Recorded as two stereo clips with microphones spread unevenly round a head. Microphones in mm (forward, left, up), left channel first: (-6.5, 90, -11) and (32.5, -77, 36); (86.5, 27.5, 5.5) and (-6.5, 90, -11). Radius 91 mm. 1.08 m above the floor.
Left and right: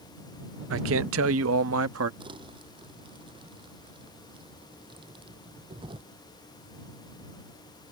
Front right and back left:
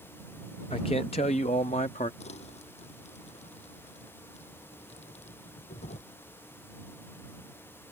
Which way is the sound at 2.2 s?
15° right.